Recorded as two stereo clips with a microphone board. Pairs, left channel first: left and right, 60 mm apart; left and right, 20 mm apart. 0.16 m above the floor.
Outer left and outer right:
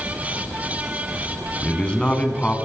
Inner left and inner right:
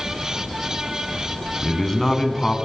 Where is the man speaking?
20° left (ahead or behind), 1.2 m.